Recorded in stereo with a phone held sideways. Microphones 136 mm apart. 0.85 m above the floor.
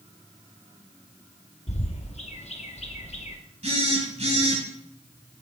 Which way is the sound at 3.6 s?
55° right (ahead or behind).